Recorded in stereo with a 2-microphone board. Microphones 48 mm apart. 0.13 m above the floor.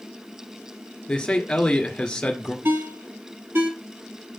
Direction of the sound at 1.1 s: 20° left (ahead or behind).